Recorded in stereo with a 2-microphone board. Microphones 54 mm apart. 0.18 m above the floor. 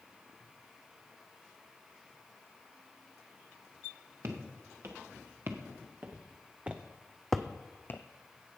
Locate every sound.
4.2 s footsteps: 50° right (ahead or behind), 1.9 m; by 8.0 s 45° left (ahead or behind), 0.5 m